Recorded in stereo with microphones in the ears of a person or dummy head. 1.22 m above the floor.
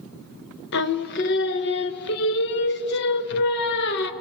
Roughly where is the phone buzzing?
No phone buzzing in this recording.